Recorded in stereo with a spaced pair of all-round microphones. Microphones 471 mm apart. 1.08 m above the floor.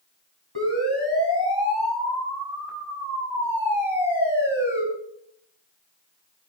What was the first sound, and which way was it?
A siren, 60° left (ahead or behind).